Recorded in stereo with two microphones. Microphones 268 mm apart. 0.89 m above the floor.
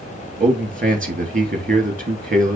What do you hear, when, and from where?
0.4 s a man speaking: 30° right (ahead or behind), 1.7 m